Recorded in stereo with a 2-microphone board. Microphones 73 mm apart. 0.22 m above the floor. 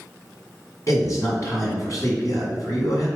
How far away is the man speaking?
About 1.9 m.